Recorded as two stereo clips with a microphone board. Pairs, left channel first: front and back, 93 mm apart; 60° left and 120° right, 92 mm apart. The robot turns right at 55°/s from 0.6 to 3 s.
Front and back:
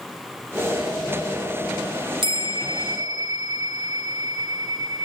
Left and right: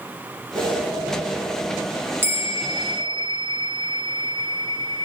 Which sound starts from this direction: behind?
A bell, at 2.2 s.